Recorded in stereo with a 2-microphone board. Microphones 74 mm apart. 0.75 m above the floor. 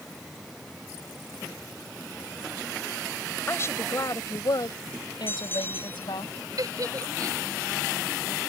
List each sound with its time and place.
3.5 s a woman speaking: 35° left (ahead or behind); by 6.3 s 85° left
5.3 s a bell: 30° left (ahead or behind)
6.6 s a giggle: 50° right (ahead or behind)